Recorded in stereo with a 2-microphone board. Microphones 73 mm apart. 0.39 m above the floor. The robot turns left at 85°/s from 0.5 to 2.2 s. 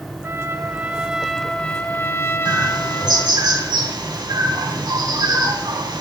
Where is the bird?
70° right (ahead or behind), 3 m.